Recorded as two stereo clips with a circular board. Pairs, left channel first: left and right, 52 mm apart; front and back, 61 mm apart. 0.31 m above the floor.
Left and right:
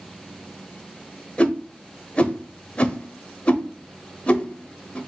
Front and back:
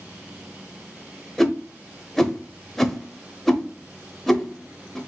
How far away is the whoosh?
About 0.7 m.